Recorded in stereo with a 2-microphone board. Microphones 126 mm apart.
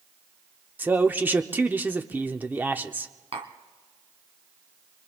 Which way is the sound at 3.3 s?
55° right (ahead or behind).